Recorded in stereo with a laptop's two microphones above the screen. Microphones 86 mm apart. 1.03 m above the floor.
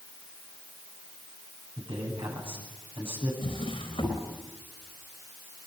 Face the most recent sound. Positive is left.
turn(degrees=80)